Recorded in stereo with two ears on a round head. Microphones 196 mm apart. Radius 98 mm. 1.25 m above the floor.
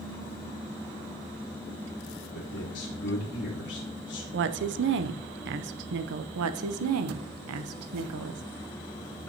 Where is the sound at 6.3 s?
75° right (ahead or behind), 0.9 m.